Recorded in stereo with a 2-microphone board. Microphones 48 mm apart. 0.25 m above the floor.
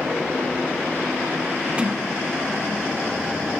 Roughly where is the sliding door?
Right.